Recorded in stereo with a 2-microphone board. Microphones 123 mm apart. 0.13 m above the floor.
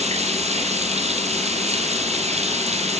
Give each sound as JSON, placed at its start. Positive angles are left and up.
{"t": 0.0, "sound": "running water", "side_deg": -65, "distance_m": 1.4}